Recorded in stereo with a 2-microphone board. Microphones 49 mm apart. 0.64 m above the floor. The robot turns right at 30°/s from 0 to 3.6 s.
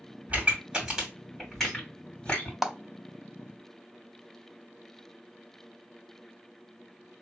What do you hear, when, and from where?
0.3 s a pop: 35° right (ahead or behind), 2 m; by 2.5 s 30° left (ahead or behind), 2 m
2.6 s a clap: 5° right (ahead or behind), 0.6 m